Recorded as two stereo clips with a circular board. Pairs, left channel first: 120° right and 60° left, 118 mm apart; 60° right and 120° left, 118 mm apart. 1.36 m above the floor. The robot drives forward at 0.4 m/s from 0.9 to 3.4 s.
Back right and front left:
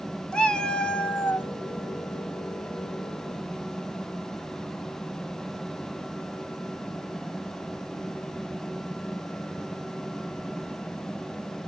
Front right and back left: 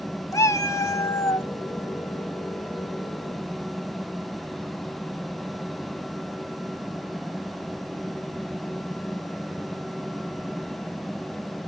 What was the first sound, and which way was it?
A cat meowing, 50° right.